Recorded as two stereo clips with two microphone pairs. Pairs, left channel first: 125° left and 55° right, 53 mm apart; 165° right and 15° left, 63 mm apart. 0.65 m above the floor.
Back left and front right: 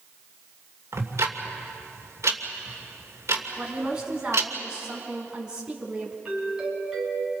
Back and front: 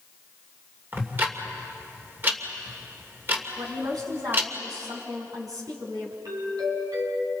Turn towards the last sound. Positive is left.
turn(degrees=20)